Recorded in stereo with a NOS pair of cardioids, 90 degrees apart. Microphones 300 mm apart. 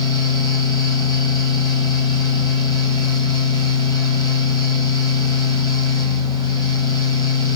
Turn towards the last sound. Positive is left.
turn(degrees=15)